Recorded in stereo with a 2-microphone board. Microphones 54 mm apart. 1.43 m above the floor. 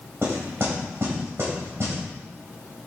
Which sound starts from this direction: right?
Knocking, at 0.2 s.